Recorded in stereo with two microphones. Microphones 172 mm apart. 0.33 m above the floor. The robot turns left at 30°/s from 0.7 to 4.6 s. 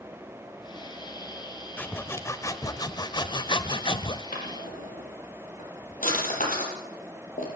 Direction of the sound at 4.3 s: 65° left (ahead or behind).